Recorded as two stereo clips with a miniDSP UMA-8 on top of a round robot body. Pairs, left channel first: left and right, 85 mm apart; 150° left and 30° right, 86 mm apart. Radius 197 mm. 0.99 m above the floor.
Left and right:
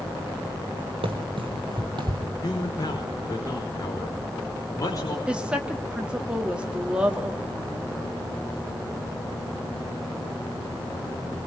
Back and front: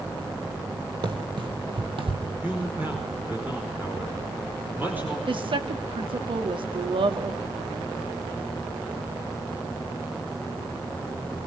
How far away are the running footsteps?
About 1.8 m.